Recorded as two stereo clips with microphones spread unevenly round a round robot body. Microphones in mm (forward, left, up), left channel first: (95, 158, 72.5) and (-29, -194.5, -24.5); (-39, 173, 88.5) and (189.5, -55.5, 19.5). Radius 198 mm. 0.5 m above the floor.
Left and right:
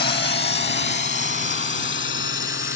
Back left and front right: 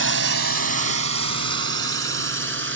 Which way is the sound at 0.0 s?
Straight ahead.